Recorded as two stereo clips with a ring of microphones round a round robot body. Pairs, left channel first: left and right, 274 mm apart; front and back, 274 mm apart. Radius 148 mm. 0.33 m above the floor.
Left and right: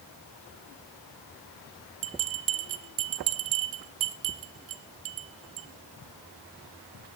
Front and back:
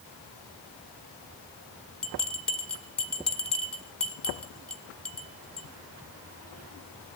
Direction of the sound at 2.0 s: 85° right.